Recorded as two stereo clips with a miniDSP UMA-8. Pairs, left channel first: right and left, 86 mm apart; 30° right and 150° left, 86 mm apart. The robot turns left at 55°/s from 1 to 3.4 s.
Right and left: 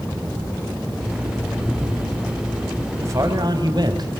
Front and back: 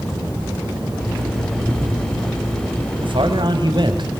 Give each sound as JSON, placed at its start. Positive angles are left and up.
{"t": 1.6, "sound": "breathing", "azimuth_deg": 180, "distance_m": 1.4}
{"t": 3.0, "sound": "a man speaking", "azimuth_deg": 145, "distance_m": 4.0}